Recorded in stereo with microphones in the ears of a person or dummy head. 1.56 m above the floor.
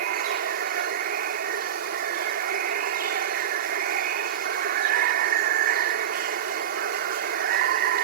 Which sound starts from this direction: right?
Running water, at 0.0 s.